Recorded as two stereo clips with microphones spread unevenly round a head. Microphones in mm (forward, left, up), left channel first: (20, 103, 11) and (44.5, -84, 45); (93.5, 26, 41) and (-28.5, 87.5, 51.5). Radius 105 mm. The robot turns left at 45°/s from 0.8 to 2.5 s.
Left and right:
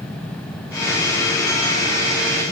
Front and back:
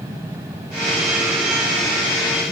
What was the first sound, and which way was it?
Only background noise.